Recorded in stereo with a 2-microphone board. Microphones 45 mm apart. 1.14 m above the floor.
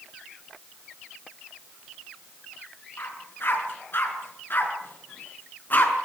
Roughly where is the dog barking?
Left.